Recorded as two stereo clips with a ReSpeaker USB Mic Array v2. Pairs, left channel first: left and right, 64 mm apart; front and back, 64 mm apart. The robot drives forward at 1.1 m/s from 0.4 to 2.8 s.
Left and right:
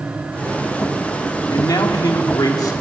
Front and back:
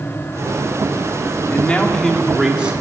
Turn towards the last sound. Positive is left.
turn(degrees=110)